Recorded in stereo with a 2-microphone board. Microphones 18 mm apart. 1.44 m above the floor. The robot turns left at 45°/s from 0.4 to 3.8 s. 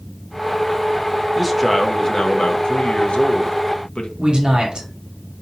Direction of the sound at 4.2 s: 40° right (ahead or behind).